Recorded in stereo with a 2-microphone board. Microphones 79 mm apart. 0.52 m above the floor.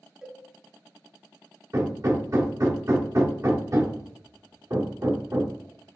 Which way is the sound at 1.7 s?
40° right (ahead or behind).